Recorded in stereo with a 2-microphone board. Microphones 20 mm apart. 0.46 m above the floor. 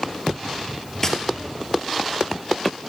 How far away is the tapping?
About 1.6 m.